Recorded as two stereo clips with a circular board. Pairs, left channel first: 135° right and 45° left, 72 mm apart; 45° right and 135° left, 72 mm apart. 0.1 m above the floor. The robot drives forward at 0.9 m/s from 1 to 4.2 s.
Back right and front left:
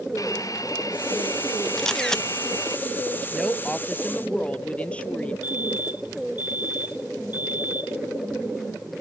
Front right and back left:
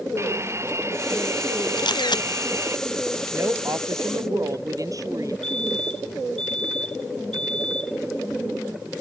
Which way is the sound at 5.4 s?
120° right.